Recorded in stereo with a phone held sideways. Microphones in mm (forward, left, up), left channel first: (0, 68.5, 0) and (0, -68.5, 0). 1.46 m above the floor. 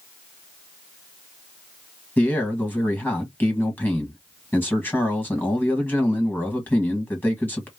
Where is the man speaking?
15° left (ahead or behind), 1.4 m.